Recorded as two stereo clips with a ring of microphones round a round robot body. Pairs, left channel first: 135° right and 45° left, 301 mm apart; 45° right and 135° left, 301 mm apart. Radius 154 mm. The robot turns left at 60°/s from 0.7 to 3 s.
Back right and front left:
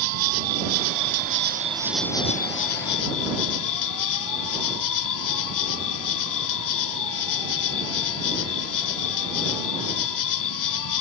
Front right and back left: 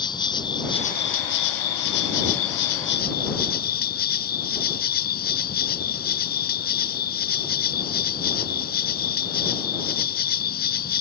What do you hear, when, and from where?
0.0 s an insect: 30° left; by 11.0 s 105° right